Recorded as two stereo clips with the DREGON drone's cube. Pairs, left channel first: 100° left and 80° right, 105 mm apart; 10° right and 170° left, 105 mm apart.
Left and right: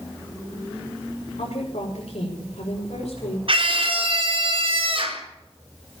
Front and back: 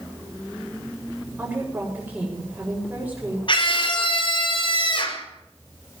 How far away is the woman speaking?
About 6 m.